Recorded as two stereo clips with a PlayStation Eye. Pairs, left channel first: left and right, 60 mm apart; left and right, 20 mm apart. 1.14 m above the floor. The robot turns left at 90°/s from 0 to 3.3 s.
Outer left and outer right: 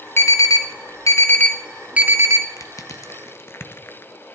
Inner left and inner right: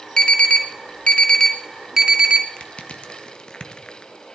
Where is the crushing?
60° left (ahead or behind), 1.1 m; by 4.1 s 45° left (ahead or behind), 1.1 m.